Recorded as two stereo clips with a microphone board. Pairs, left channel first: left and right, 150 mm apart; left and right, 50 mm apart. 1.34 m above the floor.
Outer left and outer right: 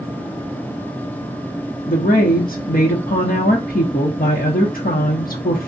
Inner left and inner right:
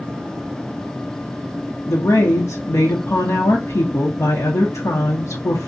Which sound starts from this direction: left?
A woman speaking, at 1.9 s.